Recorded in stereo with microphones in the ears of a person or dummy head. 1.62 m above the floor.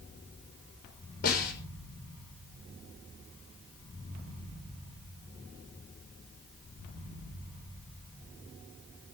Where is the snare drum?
55° left (ahead or behind), 5.5 m.